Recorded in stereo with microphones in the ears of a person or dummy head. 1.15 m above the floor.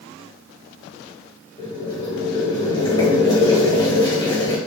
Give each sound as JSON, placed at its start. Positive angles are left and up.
{"t": 1.6, "sound": "boiling", "side_deg": 25, "distance_m": 1.4}